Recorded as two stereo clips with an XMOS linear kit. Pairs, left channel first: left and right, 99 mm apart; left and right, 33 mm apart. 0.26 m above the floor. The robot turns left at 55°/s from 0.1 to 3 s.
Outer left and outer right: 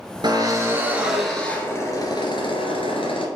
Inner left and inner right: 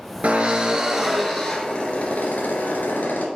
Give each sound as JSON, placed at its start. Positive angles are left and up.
{"t": 0.2, "sound": "a drill", "azimuth_deg": -125, "distance_m": 2.0}